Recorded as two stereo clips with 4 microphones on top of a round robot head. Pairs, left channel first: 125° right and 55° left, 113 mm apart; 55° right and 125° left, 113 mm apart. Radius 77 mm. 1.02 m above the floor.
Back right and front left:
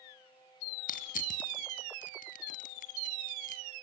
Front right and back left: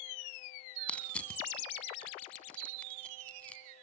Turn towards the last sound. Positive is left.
turn(degrees=-135)